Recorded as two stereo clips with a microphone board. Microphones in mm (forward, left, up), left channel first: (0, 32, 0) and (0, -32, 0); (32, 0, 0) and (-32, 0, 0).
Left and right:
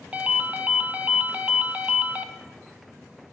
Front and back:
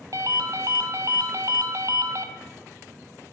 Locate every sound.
0.1 s a ringtone: 155° right, 0.7 m